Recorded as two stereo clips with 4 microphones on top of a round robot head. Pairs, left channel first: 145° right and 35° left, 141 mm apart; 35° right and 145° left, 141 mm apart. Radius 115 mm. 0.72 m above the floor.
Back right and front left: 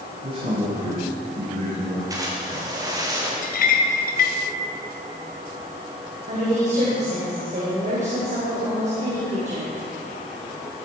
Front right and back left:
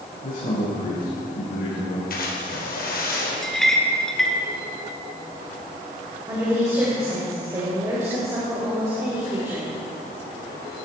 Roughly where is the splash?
Ahead right.